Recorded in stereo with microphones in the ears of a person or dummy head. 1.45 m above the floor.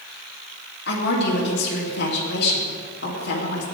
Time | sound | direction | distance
0.9 | a woman speaking | 60° left (ahead or behind) | 2.5 m